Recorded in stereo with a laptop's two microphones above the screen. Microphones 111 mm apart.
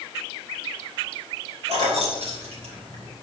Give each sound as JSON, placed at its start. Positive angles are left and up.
{"t": 1.7, "sound": "keys jangling", "side_deg": -80, "distance_m": 3.0}